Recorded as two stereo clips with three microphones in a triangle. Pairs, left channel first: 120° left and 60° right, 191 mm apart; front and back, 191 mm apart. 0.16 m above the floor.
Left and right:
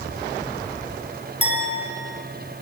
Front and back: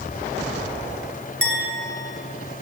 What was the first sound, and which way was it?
A clink, 175° left.